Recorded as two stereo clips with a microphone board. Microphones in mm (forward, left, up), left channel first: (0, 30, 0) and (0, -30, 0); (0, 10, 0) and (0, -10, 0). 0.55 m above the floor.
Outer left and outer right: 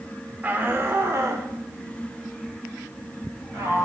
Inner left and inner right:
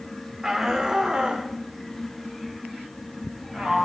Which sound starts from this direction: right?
A shout, at 0.4 s.